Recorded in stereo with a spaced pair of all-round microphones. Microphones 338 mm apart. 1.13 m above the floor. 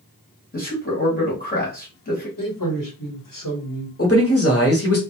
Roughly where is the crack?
No crack in this recording.